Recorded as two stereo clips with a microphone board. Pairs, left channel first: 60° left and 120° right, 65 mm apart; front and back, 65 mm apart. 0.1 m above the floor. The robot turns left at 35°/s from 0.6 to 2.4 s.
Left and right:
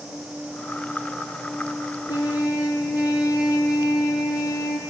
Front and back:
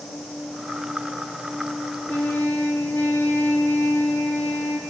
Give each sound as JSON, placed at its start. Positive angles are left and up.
{"t": 2.1, "sound": "a trumpet", "azimuth_deg": 75, "distance_m": 0.7}